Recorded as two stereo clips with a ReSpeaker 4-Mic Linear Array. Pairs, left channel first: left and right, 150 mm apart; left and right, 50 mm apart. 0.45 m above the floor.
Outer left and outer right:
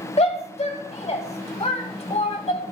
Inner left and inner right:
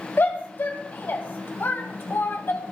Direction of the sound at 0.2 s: 45° left (ahead or behind).